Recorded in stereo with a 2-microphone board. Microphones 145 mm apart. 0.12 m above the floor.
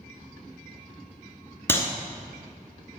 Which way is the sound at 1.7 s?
15° left (ahead or behind).